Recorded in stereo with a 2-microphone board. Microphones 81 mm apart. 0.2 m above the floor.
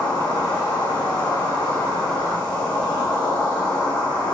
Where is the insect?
70° left (ahead or behind), 1.6 m.